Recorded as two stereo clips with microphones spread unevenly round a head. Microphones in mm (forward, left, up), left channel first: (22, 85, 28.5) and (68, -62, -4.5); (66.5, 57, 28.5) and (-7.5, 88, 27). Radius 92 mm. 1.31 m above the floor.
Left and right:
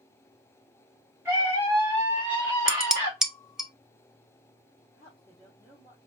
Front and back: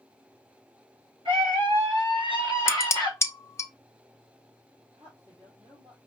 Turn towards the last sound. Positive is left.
turn(degrees=-145)